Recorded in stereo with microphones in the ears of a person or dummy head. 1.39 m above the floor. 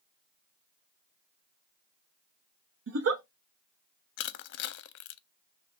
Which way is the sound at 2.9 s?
70° right (ahead or behind).